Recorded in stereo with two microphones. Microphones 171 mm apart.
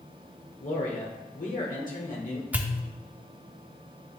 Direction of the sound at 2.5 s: 10° right (ahead or behind).